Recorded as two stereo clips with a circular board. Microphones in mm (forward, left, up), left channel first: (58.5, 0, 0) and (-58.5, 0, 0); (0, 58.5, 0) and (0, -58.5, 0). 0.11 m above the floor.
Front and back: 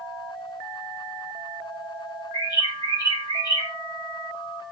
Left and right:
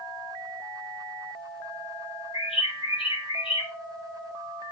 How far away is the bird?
About 3.5 m.